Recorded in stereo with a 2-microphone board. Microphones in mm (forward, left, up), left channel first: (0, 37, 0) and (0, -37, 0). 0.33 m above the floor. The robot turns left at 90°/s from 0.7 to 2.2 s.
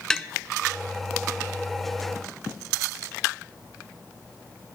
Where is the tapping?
10° left (ahead or behind), 0.6 m.